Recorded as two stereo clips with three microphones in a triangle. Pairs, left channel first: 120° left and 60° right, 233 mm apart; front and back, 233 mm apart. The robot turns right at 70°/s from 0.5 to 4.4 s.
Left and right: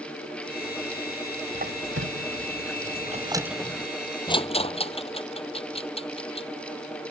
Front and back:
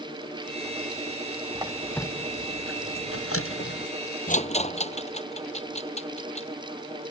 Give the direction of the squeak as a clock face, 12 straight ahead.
4 o'clock.